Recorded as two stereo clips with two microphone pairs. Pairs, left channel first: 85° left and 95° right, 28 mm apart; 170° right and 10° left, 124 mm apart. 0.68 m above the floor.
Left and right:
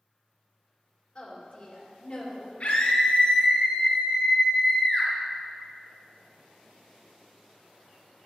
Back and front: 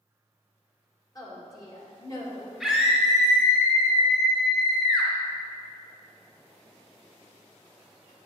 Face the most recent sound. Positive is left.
turn(degrees=105)